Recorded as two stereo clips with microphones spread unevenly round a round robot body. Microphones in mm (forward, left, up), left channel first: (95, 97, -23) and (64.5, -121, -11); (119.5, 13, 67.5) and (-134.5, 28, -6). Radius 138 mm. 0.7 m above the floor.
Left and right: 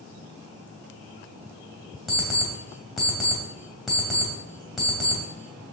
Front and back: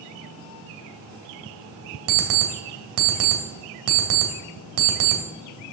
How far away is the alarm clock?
About 2 m.